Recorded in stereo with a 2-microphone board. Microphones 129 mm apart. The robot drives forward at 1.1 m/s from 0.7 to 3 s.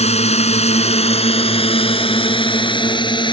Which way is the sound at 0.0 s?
60° left (ahead or behind).